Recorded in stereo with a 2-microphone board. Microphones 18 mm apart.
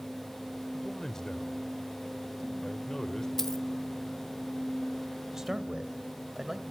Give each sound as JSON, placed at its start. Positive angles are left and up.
{"t": 0.7, "sound": "a man speaking", "side_deg": 35, "distance_m": 1.3}
{"t": 3.4, "sound": "a dropped coin", "side_deg": 20, "distance_m": 0.9}
{"t": 5.3, "sound": "a man speaking", "side_deg": -25, "distance_m": 1.9}